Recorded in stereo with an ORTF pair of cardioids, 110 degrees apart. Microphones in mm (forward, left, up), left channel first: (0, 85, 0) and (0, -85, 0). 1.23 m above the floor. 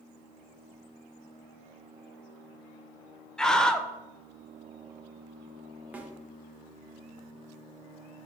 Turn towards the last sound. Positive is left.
turn(degrees=-10)